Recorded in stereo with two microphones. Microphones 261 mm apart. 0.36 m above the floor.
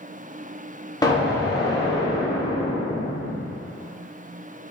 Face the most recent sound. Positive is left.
turn(degrees=15)  # may be behind; listen again after turning